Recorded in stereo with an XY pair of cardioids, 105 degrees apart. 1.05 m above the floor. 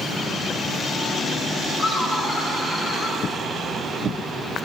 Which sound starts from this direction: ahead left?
Laughter, at 1.8 s.